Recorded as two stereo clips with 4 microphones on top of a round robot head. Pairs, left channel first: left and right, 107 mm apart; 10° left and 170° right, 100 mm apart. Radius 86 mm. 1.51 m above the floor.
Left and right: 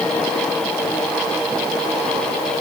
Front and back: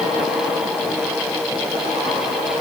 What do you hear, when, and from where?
Only background noise.